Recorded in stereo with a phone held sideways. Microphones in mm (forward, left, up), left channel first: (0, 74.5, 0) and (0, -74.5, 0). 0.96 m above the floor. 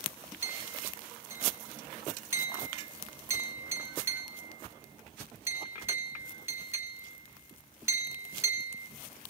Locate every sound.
0.4 s a clink: 15° right (ahead or behind), 2.5 m